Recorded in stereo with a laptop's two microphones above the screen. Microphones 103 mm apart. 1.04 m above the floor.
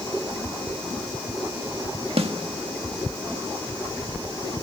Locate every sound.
2.2 s a snare drum: 70° right (ahead or behind), 1.3 m